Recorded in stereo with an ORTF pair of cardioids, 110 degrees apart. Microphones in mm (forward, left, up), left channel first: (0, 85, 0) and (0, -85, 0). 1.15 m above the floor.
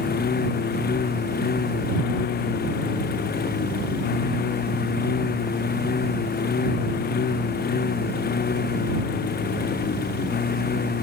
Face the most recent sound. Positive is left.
turn(degrees=65)